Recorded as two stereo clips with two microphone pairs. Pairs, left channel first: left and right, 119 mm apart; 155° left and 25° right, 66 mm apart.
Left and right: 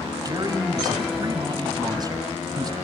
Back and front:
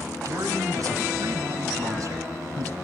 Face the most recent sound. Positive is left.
turn(degrees=-40)